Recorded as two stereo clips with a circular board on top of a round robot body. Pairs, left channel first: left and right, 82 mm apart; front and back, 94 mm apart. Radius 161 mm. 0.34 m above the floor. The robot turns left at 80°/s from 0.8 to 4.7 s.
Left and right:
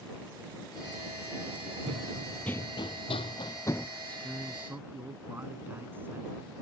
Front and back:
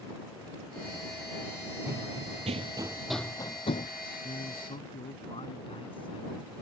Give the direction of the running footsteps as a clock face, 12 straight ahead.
4 o'clock.